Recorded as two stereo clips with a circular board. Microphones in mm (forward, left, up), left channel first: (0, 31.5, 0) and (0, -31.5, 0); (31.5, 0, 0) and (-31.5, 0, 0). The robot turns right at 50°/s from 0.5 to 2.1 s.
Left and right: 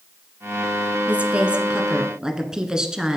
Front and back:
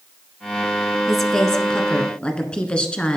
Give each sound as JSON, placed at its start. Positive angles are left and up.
{"t": 1.1, "sound": "a woman speaking", "azimuth_deg": -85, "distance_m": 1.3}